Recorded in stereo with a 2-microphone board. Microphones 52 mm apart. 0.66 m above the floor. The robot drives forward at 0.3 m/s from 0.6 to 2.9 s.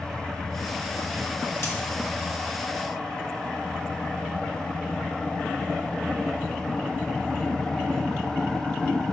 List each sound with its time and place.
1.6 s a dropped coin: 80° left, 1.5 m